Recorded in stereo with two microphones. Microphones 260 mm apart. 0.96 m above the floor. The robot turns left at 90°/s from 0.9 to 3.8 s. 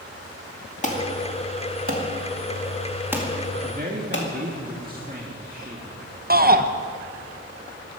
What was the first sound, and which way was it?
An alarm, 25° left (ahead or behind).